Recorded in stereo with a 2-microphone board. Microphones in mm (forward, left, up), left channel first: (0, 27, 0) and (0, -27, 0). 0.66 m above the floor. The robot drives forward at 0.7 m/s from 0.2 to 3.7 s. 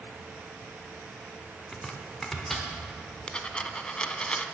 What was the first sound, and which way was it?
Chopping, 10° left (ahead or behind).